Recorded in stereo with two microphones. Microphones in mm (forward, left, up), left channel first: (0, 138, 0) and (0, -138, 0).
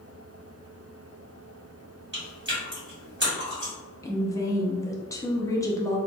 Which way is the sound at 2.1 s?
40° right (ahead or behind).